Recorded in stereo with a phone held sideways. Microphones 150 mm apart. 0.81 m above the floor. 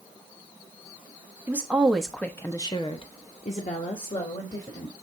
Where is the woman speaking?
10° right (ahead or behind), 1.1 m; by 4.9 s 55° left (ahead or behind), 1.8 m.